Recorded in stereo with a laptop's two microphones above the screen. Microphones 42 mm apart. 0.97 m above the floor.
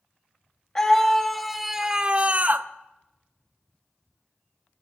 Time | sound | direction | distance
0.8 | a scream | 15° left (ahead or behind) | 1.3 m